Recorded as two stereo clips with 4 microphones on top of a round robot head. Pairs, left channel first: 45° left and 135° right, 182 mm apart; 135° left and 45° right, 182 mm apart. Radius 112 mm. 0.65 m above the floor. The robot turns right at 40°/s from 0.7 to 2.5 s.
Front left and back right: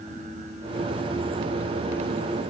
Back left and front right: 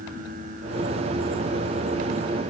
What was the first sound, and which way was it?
Only background noise.